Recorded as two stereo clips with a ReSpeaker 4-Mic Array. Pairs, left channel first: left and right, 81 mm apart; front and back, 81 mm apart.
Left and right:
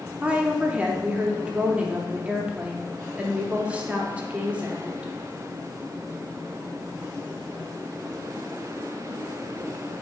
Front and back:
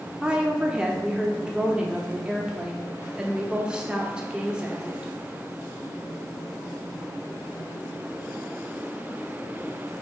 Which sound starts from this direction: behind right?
A woman speaking, at 0.2 s.